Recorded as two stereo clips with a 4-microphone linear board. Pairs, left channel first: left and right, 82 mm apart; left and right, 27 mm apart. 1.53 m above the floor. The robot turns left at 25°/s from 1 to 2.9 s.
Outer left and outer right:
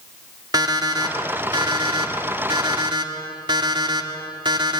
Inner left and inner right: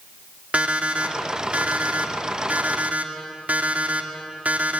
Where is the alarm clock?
60° right, 2 m; by 4.8 s 105° right, 2 m.